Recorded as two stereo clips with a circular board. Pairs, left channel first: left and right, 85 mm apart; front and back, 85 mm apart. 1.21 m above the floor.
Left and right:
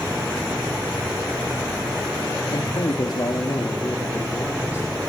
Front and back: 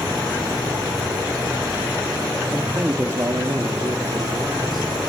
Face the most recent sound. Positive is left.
turn(degrees=150)